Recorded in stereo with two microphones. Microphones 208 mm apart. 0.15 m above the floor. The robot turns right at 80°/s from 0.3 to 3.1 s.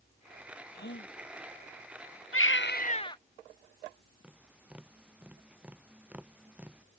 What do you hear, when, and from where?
0.7 s a gasp: 50° left; by 1.1 s 85° left
2.3 s a baby crying: 100° left; by 3.2 s 160° left
4.2 s tapping: 5° right (ahead or behind)